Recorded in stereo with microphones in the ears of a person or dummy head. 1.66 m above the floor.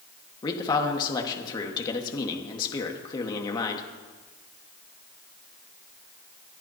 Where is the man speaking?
30° left (ahead or behind), 1.5 m.